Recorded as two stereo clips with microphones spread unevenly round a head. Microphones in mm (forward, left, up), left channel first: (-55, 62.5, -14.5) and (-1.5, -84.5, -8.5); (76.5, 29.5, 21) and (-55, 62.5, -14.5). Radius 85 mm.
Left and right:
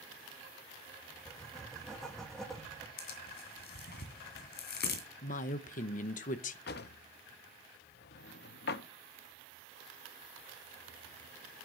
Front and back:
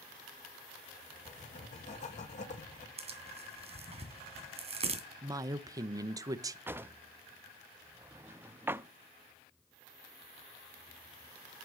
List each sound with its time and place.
1.2 s writing: 25° left, 1.7 m
3.0 s tearing paper: 120° left, 2.5 m
5.2 s a woman speaking: 125° left, 0.8 m
6.7 s a drawer: 85° left, 0.5 m